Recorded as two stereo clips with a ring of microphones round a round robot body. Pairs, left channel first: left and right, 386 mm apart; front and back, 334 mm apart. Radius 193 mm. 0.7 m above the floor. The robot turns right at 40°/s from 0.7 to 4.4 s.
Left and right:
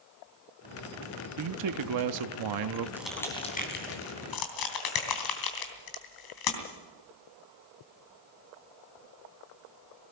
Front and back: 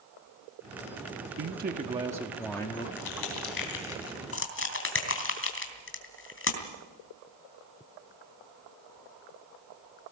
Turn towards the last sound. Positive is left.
turn(degrees=55)